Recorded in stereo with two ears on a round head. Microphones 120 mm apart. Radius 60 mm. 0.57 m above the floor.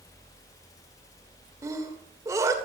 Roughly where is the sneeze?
Right.